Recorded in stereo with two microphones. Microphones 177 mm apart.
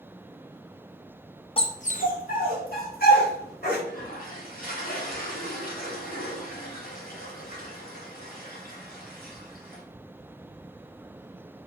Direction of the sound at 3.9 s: 55° left (ahead or behind).